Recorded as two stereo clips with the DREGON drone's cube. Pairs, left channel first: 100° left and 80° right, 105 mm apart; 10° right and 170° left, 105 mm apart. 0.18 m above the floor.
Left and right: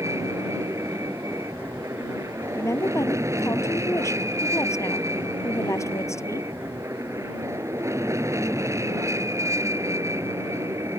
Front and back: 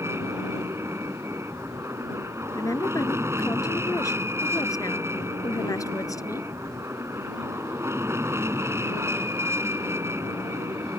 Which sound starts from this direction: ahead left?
A woman speaking, at 2.5 s.